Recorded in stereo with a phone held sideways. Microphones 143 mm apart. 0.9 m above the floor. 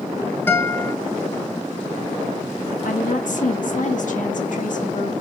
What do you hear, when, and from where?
0.5 s a guitar: 15° left (ahead or behind), 1.0 m
2.9 s a woman speaking: 65° left (ahead or behind), 1.5 m